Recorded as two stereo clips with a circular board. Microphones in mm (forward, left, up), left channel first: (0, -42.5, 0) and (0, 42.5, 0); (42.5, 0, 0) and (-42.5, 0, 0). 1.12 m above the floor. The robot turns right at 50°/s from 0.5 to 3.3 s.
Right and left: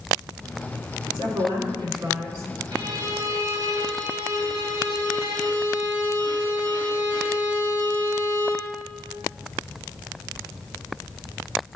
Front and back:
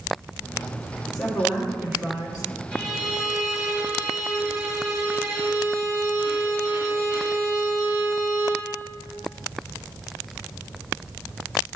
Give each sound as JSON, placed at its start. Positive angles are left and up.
{"t": 1.1, "sound": "a woman speaking", "azimuth_deg": 80, "distance_m": 2.5}
{"t": 2.7, "sound": "a violin", "azimuth_deg": 85, "distance_m": 1.4}